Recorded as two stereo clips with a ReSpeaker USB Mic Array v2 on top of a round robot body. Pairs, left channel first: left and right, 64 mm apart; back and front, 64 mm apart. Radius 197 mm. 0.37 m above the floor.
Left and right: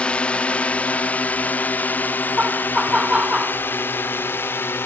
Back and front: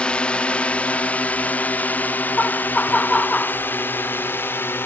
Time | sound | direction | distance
0.0 | a drone | 135° left | ?
2.4 | laughter | 145° right | ?